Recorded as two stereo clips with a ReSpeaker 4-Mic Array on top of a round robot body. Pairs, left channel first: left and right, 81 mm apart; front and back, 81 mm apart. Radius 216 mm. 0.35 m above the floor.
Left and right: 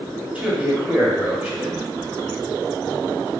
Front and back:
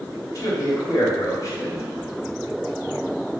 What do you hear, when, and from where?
0.3 s a man speaking: 25° right, 1.6 m